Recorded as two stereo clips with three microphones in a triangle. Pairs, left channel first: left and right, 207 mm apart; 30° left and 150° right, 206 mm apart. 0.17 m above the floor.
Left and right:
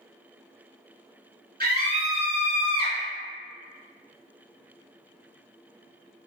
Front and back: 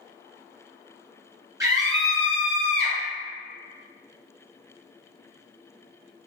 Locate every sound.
1.6 s a scream: 80° right, 1.6 m; by 3.0 s 135° right, 1.3 m